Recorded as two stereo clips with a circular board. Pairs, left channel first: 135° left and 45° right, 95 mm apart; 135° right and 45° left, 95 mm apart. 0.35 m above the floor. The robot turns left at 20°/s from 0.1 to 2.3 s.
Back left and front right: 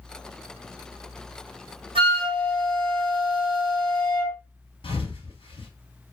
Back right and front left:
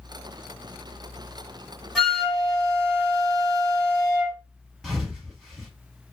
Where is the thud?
130° left, 1.0 m.